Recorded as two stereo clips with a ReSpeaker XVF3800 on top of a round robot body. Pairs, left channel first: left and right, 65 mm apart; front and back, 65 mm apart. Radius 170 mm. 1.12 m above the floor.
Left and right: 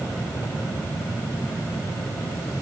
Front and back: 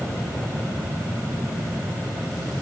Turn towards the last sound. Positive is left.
No sound to turn to.